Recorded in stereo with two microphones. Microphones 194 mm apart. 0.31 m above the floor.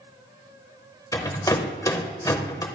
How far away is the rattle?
About 0.9 m.